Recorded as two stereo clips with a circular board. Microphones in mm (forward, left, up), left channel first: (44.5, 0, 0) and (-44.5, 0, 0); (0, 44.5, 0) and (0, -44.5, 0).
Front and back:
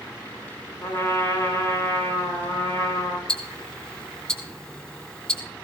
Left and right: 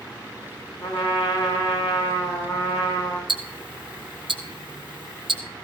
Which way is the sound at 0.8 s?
55° left.